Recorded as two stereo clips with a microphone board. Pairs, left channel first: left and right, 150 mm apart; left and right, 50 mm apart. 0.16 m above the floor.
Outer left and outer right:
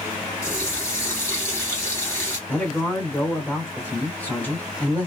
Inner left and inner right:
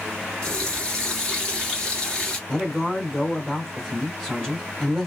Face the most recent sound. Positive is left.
turn(degrees=10)  # may be behind; listen again after turning